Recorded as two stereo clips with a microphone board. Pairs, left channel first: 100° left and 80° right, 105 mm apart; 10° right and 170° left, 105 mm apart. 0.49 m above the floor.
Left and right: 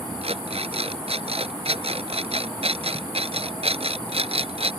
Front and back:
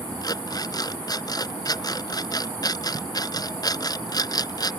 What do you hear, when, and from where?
0.2 s an alarm clock: 60° right